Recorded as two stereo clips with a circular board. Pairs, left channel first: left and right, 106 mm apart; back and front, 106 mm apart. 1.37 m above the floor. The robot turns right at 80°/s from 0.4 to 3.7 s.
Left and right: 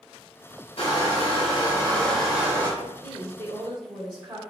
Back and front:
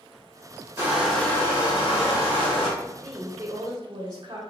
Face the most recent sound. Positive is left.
turn(degrees=-45)